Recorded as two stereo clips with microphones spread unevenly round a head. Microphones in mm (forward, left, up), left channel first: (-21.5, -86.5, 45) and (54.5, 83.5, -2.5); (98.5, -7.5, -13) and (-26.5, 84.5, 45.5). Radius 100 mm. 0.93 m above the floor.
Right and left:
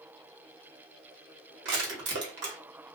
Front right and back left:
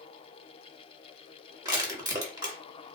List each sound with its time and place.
1.6 s crushing: 70° left, 1.3 m